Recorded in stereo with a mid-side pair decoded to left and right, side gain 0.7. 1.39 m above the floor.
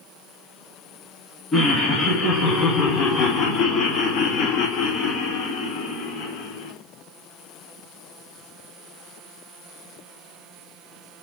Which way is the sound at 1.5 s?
30° left.